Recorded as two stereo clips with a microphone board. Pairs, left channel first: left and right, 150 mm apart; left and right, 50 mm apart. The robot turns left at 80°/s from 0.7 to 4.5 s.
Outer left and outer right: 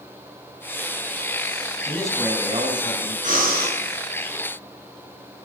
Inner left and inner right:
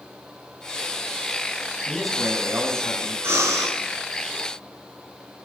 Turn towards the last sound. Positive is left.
turn(degrees=-155)